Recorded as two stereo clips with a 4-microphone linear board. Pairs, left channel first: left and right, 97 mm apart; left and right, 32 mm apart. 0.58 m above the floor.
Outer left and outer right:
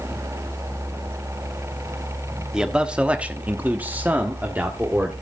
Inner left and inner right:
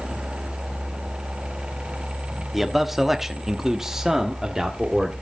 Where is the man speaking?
10° right (ahead or behind), 1.3 m; by 5.1 s 15° right (ahead or behind), 1.7 m.